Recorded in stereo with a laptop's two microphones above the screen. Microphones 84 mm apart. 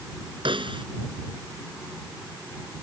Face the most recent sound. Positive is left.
turn(degrees=-90)